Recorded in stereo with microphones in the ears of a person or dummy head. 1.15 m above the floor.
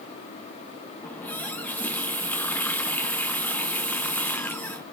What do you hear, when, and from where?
1.0 s a running tap: 15° left (ahead or behind), 0.6 m